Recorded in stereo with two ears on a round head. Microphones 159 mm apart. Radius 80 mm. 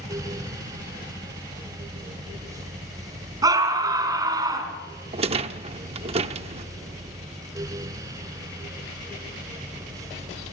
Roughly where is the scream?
Right.